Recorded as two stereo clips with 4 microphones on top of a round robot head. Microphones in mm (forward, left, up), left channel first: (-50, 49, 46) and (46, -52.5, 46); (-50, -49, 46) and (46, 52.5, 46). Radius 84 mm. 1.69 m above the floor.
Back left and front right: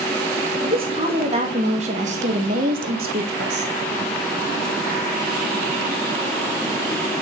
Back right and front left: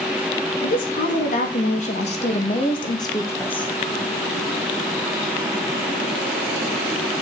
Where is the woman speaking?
100° right, 2.5 m; by 3.7 s 50° right, 1.3 m.